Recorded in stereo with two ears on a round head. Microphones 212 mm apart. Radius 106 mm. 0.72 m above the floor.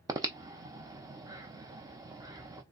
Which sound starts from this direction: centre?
Breathing, at 0.1 s.